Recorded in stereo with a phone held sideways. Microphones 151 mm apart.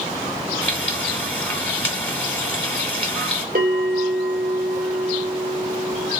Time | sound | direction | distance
0.6 | frying | 10° left (ahead or behind) | 1.7 m
3.5 | a bell | 75° right (ahead or behind) | 2.5 m